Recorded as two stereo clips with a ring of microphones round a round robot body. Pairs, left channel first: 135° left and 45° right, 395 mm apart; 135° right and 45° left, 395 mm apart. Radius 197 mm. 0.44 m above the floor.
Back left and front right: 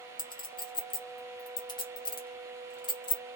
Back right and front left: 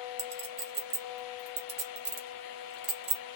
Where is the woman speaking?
I don't hear a woman speaking.